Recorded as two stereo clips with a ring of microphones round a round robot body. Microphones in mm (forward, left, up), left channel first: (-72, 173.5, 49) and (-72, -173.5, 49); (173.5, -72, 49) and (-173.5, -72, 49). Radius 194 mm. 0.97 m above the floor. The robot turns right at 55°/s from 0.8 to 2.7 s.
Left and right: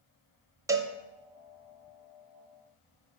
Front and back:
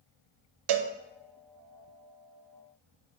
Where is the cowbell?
170° right, 0.5 m; by 0.9 s 165° right, 0.5 m.